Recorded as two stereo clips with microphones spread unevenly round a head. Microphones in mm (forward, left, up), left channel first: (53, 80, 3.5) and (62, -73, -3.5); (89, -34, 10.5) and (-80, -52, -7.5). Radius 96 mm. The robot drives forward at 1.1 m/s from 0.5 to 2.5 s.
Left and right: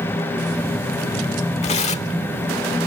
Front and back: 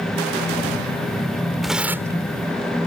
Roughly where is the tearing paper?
Left.